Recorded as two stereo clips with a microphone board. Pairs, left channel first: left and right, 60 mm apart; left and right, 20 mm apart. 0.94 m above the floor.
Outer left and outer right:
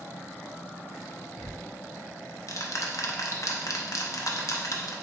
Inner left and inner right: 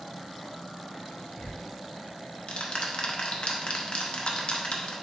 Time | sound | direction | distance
1.4 | ticking | 60° left (ahead or behind) | 0.6 m